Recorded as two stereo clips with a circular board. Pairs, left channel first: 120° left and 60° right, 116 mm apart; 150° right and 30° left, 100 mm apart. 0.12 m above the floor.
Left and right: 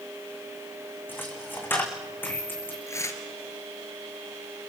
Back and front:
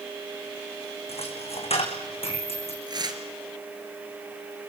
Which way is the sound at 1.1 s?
165° right.